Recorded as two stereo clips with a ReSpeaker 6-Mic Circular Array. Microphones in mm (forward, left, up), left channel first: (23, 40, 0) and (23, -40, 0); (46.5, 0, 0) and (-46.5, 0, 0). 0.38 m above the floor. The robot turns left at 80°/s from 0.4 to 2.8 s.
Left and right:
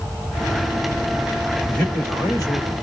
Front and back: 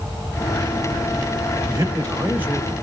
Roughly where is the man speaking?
Behind.